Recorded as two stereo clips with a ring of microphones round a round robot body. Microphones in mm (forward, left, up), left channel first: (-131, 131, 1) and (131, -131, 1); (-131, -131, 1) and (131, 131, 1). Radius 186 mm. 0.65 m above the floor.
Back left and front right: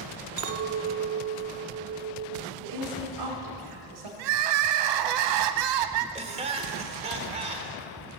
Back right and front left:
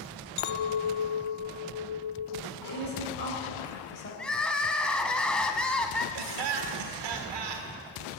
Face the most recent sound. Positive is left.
turn(degrees=30)